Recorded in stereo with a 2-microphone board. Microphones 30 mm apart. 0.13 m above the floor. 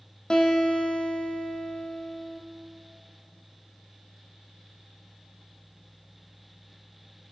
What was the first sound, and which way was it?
A guitar, 30° left (ahead or behind).